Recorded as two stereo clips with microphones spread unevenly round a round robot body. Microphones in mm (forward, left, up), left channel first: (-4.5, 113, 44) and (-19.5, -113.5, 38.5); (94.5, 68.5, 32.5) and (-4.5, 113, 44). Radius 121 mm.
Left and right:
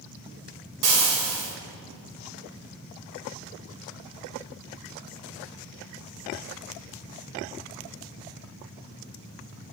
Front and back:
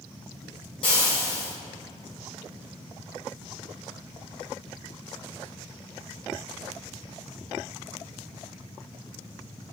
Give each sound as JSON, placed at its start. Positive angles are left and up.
{"t": 0.8, "sound": "frying", "azimuth_deg": -80, "distance_m": 2.5}